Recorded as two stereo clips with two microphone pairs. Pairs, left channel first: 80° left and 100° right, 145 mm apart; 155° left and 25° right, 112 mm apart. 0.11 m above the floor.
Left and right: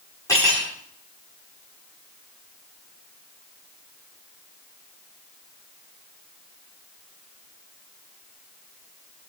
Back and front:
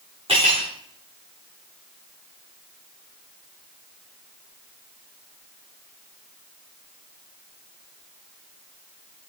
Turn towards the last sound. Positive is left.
turn(degrees=10)